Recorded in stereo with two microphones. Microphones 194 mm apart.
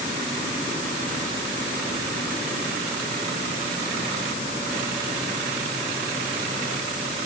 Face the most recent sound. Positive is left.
No sound to turn to.